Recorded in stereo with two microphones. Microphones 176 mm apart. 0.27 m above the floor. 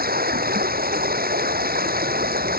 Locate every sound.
0.0 s running water: 60° right (ahead or behind)